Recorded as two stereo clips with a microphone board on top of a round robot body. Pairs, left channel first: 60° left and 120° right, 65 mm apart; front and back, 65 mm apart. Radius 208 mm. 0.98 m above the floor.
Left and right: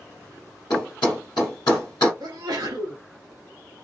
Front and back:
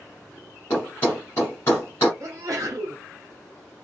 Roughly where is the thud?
Ahead left.